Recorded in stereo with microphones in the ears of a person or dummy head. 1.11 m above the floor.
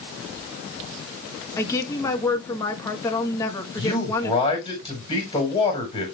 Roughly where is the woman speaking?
Centre.